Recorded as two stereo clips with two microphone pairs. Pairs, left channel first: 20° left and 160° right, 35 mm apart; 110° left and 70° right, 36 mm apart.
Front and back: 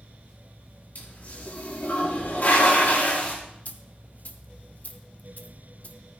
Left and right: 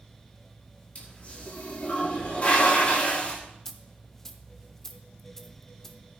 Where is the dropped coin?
30° left, 0.8 m.